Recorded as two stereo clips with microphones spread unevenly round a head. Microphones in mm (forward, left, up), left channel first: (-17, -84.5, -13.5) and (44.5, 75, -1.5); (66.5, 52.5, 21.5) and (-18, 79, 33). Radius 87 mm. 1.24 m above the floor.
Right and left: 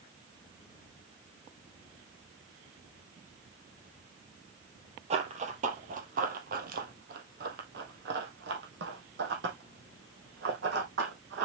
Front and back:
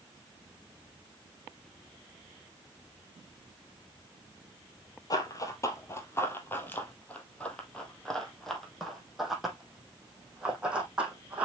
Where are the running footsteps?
25° left, 2.5 m; by 11.5 s 90° left, 4.5 m.